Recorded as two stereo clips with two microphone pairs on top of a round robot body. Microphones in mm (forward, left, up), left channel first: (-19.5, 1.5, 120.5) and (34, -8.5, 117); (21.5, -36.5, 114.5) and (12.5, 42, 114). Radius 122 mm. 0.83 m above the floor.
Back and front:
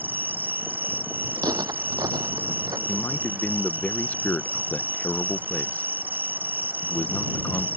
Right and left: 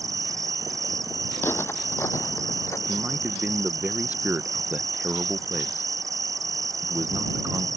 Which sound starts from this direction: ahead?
Footsteps, at 1.4 s.